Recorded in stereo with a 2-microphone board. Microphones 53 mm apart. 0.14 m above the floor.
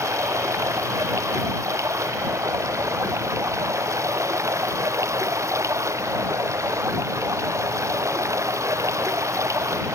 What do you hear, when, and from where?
0.0 s running water: 70° right (ahead or behind)